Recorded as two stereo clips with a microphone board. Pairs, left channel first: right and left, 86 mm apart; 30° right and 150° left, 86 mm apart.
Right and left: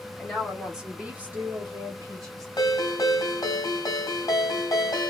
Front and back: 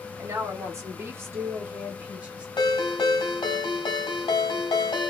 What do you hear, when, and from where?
0.2 s a woman speaking: 175° right, 1.3 m; by 2.5 s 75° left, 1.3 m
2.6 s a ringtone: 50° right, 1.2 m